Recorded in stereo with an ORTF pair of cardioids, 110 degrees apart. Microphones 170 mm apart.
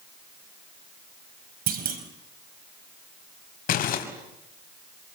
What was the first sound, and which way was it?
A clunk, 60° right.